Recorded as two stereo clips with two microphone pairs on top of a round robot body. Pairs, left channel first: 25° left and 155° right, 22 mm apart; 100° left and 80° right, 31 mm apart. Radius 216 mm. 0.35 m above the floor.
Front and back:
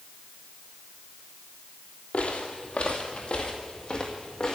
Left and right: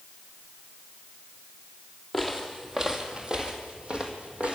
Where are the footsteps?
10° left, 1.2 m; by 4.6 s 30° right, 2 m.